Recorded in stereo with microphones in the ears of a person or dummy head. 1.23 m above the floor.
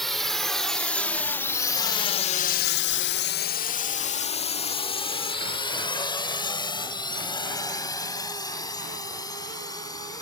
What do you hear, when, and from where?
0.0 s a drone: centre (ahead or behind); by 10.2 s 15° left (ahead or behind)